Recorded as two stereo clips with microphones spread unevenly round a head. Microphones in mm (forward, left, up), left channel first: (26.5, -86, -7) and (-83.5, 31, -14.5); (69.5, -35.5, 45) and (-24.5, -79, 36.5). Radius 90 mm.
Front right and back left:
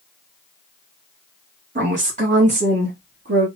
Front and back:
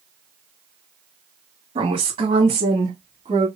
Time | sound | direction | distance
1.8 | a woman speaking | 170° left | 2 m